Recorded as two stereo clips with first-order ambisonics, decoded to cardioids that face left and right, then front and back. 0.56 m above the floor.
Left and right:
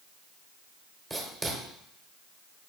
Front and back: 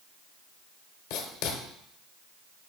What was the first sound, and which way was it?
Writing, 15° right.